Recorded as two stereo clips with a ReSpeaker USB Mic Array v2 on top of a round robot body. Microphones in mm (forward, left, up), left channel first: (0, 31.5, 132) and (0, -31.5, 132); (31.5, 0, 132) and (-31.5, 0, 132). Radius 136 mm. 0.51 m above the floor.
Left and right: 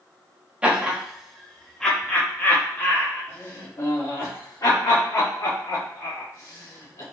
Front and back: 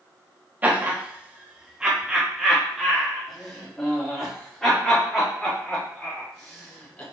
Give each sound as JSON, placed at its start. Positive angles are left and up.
{"t": 0.6, "sound": "laughter", "azimuth_deg": -145, "distance_m": 1.3}